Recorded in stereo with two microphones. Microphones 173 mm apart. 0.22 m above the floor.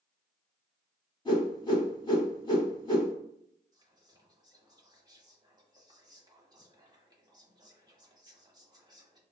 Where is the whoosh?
25° left (ahead or behind), 1.0 m.